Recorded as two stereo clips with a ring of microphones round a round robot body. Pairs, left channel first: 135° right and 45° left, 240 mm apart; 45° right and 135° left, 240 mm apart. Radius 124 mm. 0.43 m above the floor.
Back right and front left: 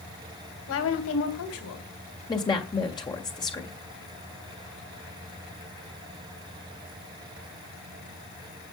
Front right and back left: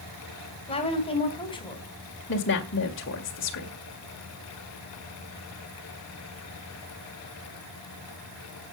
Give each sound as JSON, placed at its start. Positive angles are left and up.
{"t": 0.7, "sound": "a woman speaking", "azimuth_deg": -110, "distance_m": 3.0}
{"t": 2.3, "sound": "a woman speaking", "azimuth_deg": -65, "distance_m": 1.8}